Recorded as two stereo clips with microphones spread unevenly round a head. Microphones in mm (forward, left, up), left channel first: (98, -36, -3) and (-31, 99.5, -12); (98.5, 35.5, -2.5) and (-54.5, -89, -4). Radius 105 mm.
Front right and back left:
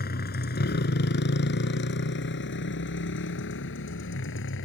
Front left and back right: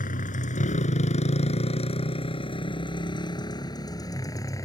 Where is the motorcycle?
10° right; by 4.7 s 35° right.